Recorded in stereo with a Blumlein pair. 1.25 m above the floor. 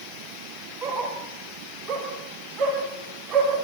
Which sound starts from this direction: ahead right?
A dog barking, at 0.8 s.